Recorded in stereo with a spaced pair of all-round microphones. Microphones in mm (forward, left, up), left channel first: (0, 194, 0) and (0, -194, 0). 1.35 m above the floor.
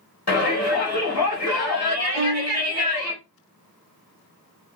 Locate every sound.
0.3 s a shout: 60° left (ahead or behind), 0.9 m
2.1 s a violin: 15° left (ahead or behind), 1.3 m